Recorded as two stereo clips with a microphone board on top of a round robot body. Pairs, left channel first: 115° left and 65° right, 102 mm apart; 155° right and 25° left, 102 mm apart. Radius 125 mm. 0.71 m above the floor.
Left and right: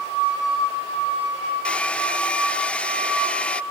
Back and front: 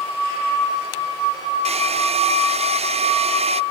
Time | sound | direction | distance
1.6 | a hair dryer | 35° left | ?